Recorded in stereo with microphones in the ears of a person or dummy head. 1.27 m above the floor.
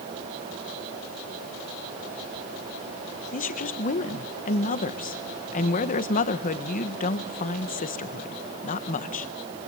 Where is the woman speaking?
45° left (ahead or behind), 1.4 m.